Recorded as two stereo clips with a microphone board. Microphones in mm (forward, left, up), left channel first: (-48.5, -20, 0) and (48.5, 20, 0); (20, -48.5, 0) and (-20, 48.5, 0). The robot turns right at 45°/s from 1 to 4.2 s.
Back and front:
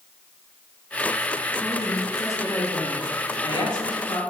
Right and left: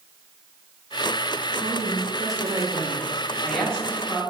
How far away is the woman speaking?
About 0.8 m.